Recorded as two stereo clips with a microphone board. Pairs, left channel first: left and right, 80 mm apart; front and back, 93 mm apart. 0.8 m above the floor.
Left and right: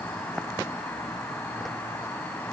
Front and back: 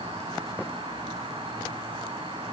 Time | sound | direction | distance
0.0 | an insect | 160° left | 7.5 m